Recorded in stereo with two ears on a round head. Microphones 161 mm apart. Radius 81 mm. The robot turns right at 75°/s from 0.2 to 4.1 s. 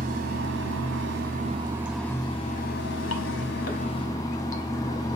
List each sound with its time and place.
0.0 s running water: 130° right, 0.8 m; by 5.2 s 160° left, 0.8 m